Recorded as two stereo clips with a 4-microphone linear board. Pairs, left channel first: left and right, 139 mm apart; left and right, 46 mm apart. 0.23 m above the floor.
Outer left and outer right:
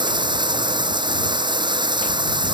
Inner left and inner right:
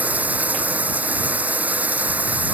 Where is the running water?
35° right (ahead or behind).